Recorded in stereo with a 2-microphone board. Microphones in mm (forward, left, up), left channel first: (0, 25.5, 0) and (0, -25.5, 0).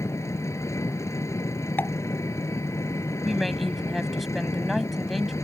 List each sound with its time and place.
0.0 s an engine running: 80° left
1.8 s a pop: 40° left (ahead or behind)
3.2 s a woman speaking: centre (ahead or behind)